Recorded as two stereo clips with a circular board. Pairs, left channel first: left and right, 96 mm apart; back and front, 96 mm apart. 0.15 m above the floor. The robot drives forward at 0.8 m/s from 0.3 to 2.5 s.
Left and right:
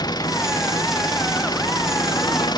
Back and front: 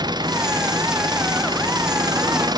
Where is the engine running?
45° left.